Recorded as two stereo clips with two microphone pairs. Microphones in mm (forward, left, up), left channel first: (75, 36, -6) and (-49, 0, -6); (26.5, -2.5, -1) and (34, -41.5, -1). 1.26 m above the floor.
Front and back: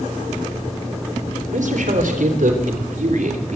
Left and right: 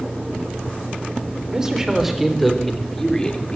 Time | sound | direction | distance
1.5 | a man speaking | 150° right | 3.5 m